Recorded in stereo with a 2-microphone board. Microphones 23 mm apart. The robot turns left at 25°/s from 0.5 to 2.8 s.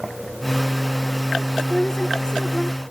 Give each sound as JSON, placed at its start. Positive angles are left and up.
{"t": 1.6, "sound": "a woman speaking", "side_deg": 30, "distance_m": 1.3}